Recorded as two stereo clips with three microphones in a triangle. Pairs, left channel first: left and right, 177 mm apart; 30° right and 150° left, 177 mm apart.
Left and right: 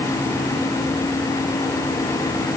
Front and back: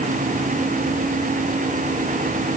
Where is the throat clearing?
I don't hear throat clearing.